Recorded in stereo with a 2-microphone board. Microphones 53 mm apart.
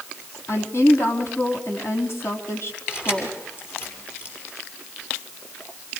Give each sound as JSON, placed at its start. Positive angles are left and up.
{"t": 0.5, "sound": "a woman speaking", "side_deg": 60, "distance_m": 3.5}
{"t": 2.9, "sound": "keys jangling", "side_deg": 50, "distance_m": 7.0}